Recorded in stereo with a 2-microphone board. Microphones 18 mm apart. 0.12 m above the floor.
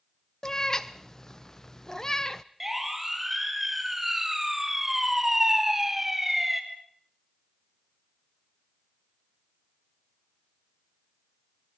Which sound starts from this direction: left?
A cat meowing, at 0.4 s.